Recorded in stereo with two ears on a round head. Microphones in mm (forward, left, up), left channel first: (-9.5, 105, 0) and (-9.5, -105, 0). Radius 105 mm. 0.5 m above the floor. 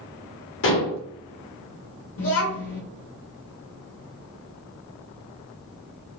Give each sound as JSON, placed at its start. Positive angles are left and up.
{"t": 0.6, "sound": "dishes clattering", "side_deg": 55, "distance_m": 1.2}
{"t": 2.2, "sound": "a child speaking", "side_deg": 65, "distance_m": 0.7}